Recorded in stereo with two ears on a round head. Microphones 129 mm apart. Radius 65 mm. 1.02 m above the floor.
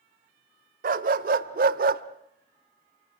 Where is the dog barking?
65° right (ahead or behind), 1.8 m.